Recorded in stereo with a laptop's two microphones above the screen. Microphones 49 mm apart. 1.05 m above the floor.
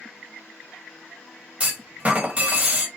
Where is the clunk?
25° right (ahead or behind), 1.7 m.